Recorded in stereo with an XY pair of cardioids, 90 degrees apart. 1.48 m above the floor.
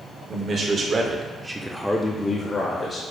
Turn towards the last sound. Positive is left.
turn(degrees=65)